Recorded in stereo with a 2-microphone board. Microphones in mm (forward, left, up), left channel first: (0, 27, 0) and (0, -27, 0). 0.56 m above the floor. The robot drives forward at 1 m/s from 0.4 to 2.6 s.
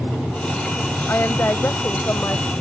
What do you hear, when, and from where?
1.1 s a woman speaking: 40° left (ahead or behind); by 2.5 s 55° left (ahead or behind)